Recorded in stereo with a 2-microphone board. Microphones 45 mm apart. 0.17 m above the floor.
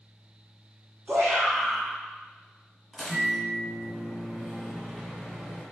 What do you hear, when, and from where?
1.1 s a shout: 50° right (ahead or behind), 1.6 m
2.9 s a microwave: 10° right (ahead or behind), 1.4 m